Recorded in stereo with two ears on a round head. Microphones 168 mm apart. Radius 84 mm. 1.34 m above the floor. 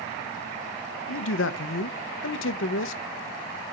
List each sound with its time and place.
1.1 s a man speaking: 75° left (ahead or behind), 0.9 m